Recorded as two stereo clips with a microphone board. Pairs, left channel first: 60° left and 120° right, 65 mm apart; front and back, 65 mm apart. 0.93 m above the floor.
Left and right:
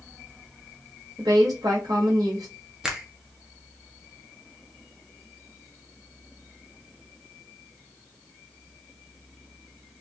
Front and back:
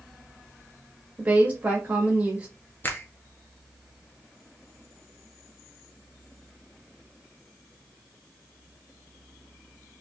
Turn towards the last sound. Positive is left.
turn(degrees=-40)